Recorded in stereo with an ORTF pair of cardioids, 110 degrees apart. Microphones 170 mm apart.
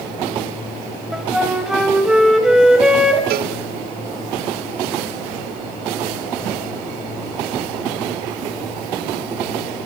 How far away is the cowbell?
About 1.4 m.